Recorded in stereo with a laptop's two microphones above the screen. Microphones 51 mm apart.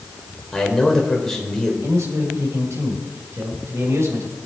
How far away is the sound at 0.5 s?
About 4.5 m.